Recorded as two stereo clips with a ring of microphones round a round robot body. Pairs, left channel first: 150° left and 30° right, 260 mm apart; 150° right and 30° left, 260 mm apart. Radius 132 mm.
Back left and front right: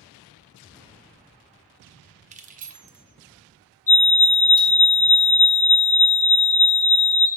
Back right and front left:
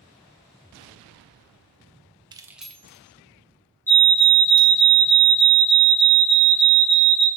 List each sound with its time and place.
2.3 s keys jangling: 20° right, 0.5 m; by 4.8 s 100° right, 1.5 m
3.9 s a fire alarm: 135° left, 1.9 m